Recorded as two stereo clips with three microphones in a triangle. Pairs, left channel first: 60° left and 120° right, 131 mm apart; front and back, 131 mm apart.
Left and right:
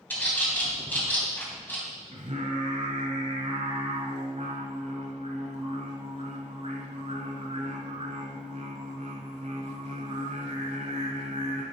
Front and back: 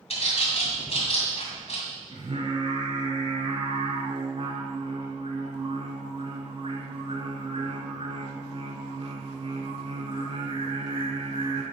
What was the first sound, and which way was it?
A bird, 15° right.